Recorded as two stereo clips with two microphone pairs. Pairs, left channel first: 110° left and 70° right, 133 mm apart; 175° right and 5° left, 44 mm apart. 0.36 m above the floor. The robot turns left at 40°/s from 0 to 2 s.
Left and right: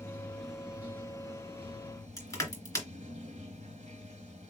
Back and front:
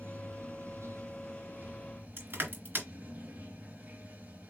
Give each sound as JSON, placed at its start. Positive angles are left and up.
{"t": 0.0, "sound": "running water", "azimuth_deg": 40, "distance_m": 1.6}
{"t": 2.2, "sound": "crushing", "azimuth_deg": 40, "distance_m": 2.5}